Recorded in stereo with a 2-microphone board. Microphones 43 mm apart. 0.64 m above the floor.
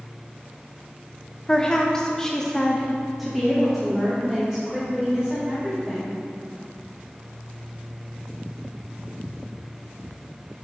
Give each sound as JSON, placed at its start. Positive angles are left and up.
{"t": 1.5, "sound": "a woman speaking", "side_deg": 15, "distance_m": 1.4}